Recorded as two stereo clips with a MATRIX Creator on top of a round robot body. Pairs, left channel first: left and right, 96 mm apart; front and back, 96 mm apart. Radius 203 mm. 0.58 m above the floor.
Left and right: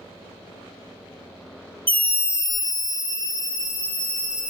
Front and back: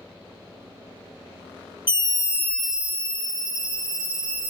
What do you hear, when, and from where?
1.9 s a scream: 20° left, 0.8 m; by 4.5 s 155° left, 1.6 m